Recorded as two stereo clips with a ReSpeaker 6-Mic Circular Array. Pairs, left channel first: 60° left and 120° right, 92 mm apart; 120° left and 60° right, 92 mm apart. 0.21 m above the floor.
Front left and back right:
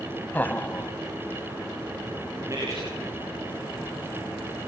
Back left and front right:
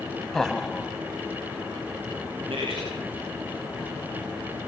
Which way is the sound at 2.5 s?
65° right.